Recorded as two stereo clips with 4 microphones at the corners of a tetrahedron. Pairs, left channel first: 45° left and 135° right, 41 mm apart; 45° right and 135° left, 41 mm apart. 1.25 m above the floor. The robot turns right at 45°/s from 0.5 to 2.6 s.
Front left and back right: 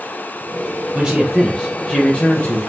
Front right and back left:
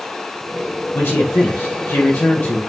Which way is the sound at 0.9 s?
70° right.